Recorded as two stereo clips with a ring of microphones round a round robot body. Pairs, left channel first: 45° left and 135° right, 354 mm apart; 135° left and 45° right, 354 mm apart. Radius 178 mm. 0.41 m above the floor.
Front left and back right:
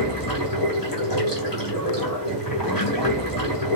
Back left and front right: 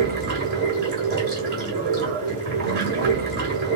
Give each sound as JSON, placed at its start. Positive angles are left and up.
{"t": 0.0, "sound": "running water", "azimuth_deg": 10, "distance_m": 2.0}